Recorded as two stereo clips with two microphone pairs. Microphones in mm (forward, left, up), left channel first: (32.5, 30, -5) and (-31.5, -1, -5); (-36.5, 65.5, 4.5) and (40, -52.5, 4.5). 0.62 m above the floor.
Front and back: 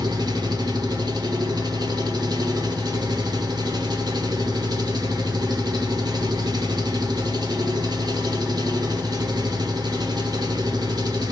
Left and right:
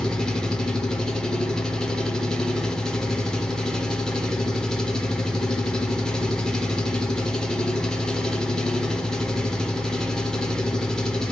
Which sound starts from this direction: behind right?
An engine running, at 0.0 s.